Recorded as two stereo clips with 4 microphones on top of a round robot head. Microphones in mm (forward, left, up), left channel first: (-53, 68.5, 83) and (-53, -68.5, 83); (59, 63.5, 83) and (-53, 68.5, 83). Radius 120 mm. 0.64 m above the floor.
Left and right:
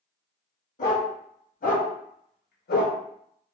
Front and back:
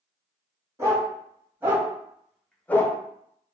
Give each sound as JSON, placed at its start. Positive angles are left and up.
{"t": 0.8, "sound": "a dog barking", "azimuth_deg": 115, "distance_m": 2.0}